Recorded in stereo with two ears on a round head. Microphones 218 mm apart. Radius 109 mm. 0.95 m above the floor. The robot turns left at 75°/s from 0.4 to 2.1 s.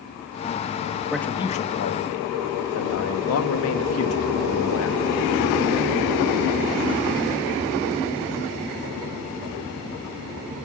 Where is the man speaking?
175° right, 1.3 m; by 5.0 s 110° left, 1.3 m.